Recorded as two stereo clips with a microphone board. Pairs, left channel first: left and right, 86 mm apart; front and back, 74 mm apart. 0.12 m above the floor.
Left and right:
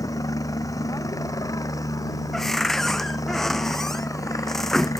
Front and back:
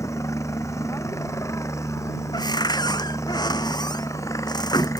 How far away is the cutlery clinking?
I don't hear cutlery clinking.